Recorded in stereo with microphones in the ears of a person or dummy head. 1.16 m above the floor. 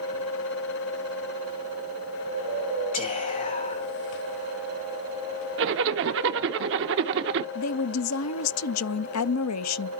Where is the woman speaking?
80° left, 0.6 m.